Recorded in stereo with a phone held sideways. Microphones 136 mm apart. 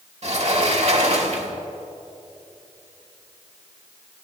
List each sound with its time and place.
0.2 s a sliding door: 55° right (ahead or behind), 1.5 m